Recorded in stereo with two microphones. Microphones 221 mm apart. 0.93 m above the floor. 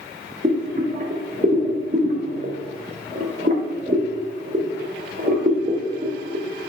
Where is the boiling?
40° right (ahead or behind), 1.4 m.